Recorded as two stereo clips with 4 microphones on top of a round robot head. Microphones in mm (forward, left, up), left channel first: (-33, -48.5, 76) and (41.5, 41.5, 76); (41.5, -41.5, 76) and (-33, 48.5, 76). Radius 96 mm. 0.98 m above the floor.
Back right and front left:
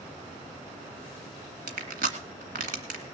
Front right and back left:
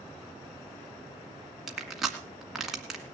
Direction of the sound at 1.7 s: 45° left.